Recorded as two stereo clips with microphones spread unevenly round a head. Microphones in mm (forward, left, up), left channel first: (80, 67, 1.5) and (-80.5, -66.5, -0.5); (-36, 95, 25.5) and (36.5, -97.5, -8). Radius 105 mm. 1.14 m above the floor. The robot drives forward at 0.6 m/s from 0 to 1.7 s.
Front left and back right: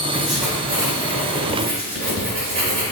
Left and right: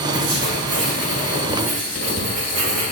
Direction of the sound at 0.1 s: 45° right.